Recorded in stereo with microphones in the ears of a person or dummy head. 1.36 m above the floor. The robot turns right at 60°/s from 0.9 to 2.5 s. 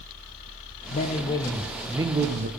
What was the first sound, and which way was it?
A man speaking, 130° left.